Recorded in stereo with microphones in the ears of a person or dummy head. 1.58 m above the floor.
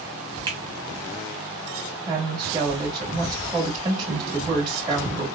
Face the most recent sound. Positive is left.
turn(degrees=-20)  # may be behind; listen again after turning